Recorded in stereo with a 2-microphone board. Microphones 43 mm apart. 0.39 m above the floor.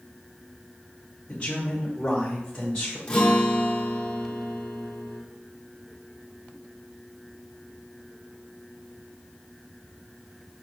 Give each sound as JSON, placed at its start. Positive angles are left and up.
{"t": 1.3, "sound": "a man speaking", "side_deg": 25, "distance_m": 1.7}
{"t": 3.1, "sound": "a guitar", "side_deg": 25, "distance_m": 1.1}